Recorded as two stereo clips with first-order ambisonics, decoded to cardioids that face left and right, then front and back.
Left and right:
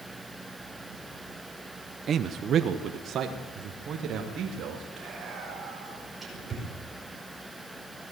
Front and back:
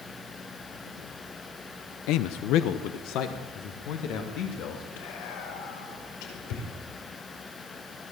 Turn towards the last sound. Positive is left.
turn(degrees=-15)